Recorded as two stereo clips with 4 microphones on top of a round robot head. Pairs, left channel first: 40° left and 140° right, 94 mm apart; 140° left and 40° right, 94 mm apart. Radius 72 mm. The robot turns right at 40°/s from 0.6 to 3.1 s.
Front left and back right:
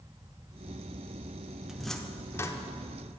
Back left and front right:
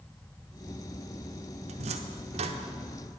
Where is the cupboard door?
55° right, 0.9 m; by 2.6 s 20° right, 0.9 m.